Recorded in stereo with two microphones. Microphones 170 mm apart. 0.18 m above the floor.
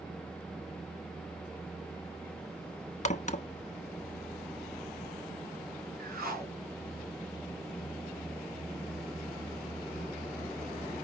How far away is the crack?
About 0.5 m.